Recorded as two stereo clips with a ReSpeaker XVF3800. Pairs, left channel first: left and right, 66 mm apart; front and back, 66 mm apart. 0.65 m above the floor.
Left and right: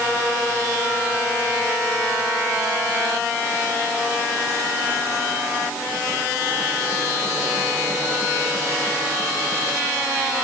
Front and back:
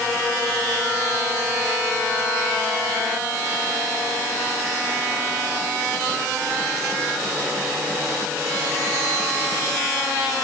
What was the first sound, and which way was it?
Only background noise.